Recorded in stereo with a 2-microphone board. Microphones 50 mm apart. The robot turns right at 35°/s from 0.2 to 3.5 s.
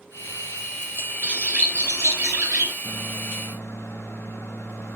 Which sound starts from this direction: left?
A microwave, at 2.8 s.